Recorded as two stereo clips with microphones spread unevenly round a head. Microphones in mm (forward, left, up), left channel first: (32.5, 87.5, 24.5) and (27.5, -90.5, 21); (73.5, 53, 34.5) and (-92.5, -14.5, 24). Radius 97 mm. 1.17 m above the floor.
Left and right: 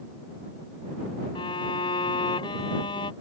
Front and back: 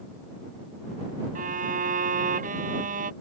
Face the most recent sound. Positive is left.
turn(degrees=155)